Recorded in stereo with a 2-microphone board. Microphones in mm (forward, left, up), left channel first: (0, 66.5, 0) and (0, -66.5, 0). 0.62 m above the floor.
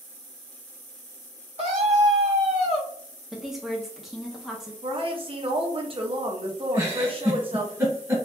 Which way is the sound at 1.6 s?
50° right (ahead or behind).